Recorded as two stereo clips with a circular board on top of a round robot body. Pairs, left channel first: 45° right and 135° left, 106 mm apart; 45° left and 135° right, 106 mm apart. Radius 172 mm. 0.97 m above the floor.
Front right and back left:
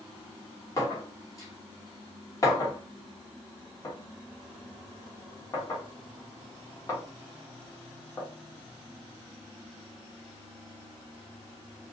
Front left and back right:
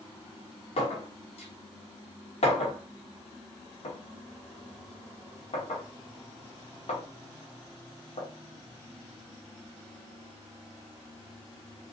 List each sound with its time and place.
0.8 s a clink: 15° left, 1.2 m